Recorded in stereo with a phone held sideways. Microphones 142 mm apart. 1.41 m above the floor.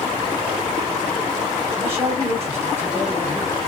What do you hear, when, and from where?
1.8 s a man speaking: 15° right (ahead or behind), 2 m